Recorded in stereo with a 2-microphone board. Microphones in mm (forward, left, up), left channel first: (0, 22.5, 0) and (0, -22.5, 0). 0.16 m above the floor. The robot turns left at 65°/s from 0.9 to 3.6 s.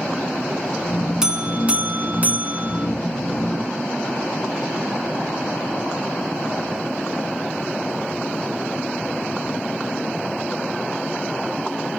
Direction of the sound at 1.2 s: 25° right.